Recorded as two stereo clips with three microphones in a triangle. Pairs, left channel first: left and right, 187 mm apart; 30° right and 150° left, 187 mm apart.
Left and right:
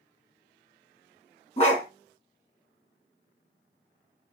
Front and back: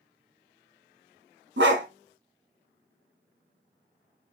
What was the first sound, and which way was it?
A dog barking, 145° left.